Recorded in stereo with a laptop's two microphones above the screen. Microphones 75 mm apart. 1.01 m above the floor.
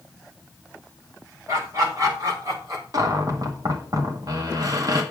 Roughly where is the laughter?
Right.